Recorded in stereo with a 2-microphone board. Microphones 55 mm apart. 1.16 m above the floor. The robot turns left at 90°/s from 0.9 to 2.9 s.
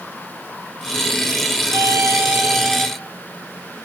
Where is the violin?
90° right, 1.6 m; by 2.9 s 165° left, 1.6 m.